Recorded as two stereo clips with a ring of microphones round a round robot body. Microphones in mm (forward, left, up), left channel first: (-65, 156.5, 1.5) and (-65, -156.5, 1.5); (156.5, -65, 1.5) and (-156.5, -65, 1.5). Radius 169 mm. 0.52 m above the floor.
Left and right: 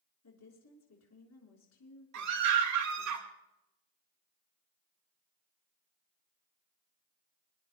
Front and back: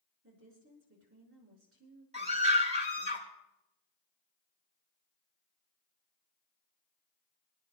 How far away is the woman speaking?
About 6 m.